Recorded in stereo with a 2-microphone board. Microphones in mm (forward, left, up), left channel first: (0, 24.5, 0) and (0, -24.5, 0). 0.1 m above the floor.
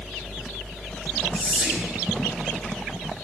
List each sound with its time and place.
1.3 s whispering: 30° right (ahead or behind), 1.4 m